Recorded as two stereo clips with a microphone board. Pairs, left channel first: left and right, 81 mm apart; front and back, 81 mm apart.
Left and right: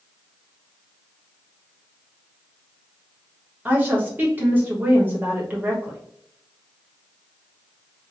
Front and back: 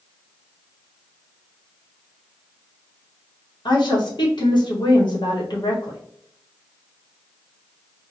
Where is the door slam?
I don't hear a door slam.